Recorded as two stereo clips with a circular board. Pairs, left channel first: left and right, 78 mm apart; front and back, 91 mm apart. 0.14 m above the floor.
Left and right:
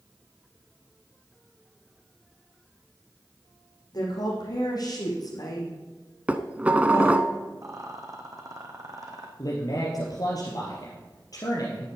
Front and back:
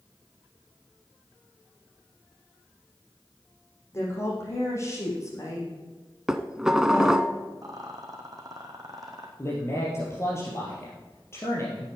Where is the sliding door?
No sliding door in this recording.